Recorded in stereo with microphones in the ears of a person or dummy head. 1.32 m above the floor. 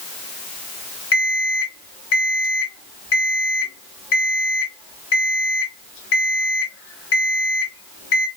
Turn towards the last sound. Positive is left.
turn(degrees=70)  # may be behind; listen again after turning